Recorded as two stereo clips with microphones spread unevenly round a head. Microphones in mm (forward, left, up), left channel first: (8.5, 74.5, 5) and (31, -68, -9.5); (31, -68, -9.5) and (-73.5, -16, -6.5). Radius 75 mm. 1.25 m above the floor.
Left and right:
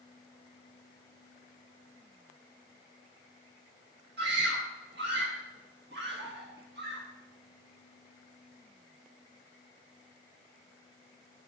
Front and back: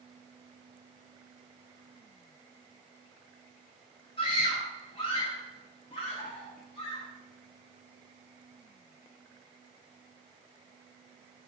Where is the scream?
65° right, 1.6 m.